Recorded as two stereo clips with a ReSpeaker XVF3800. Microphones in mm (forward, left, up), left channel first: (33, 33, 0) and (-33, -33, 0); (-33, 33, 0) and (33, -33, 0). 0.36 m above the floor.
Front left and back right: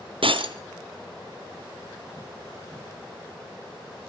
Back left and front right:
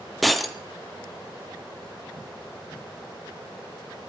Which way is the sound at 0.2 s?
135° right.